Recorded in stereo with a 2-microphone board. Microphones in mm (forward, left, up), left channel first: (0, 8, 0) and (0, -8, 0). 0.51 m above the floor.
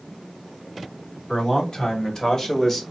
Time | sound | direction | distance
1.3 | a man speaking | 45° left (ahead or behind) | 3.5 m